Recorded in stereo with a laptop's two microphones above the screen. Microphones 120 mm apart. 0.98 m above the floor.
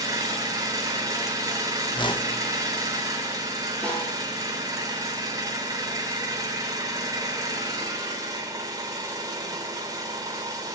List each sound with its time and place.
0.0 s an engine running: 30° right (ahead or behind), 3 m
1.9 s a whoosh: 40° left (ahead or behind), 0.9 m
3.8 s a snare drum: 5° left (ahead or behind), 7 m